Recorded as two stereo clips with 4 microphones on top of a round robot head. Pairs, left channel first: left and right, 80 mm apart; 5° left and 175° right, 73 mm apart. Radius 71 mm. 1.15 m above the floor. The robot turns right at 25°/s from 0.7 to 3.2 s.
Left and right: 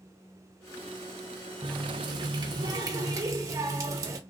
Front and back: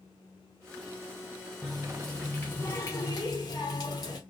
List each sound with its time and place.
1.6 s a running tap: 90° right, 0.5 m; by 4.2 s 50° right, 0.5 m